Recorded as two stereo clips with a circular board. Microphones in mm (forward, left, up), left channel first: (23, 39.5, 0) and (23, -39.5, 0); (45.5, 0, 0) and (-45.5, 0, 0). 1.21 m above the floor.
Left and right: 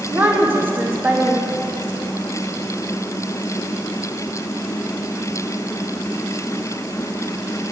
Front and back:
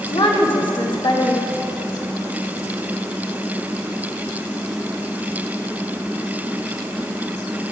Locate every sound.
0.1 s a woman speaking: 25° right, 1.6 m